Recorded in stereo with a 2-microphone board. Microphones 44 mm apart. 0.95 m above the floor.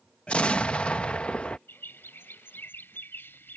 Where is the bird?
55° left (ahead or behind).